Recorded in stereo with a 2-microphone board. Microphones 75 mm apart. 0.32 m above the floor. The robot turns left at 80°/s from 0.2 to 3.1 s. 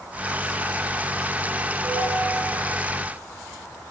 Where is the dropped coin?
I don't hear a dropped coin.